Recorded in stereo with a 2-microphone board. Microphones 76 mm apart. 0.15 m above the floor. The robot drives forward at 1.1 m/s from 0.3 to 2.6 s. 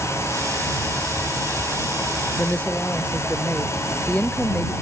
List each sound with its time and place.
2.4 s a woman speaking: 20° left (ahead or behind)